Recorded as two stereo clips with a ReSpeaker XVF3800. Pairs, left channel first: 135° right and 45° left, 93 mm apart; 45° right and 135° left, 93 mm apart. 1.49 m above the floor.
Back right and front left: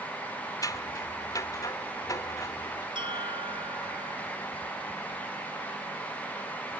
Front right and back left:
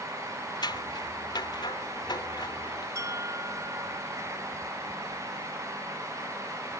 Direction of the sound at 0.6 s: 85° right.